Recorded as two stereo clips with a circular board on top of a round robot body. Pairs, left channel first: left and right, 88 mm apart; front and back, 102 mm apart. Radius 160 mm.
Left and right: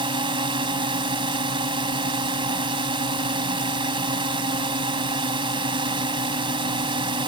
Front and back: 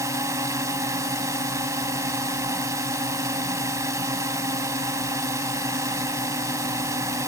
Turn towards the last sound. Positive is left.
turn(degrees=-120)